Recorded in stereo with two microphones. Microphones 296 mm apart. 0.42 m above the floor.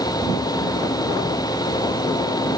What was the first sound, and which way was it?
Only background noise.